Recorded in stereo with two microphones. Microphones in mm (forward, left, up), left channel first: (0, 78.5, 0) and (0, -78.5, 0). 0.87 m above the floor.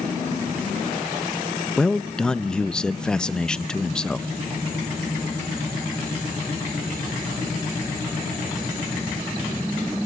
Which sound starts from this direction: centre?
A man speaking, at 1.8 s.